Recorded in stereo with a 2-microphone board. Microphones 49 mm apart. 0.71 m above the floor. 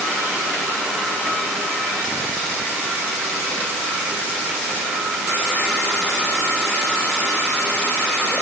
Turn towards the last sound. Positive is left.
No sound to turn to.